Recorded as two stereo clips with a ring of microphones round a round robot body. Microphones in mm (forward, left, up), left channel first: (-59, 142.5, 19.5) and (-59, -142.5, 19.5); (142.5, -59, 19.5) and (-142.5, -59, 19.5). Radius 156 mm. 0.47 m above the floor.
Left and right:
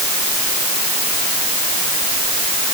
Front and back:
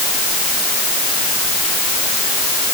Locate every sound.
Only background noise.